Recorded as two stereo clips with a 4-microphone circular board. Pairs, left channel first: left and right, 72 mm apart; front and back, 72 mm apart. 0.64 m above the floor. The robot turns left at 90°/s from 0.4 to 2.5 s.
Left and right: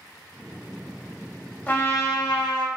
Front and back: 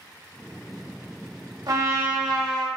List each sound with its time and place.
1.7 s a trumpet: 155° left, 0.9 m; by 2.7 s 80° left, 0.9 m